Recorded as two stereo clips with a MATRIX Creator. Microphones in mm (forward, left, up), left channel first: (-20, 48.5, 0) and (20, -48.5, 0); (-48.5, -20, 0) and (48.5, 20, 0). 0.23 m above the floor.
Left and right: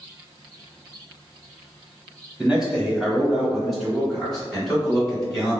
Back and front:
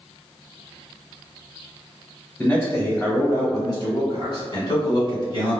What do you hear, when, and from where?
2.4 s a man speaking: 140° right, 1.5 m; by 5.6 s 165° right, 2.5 m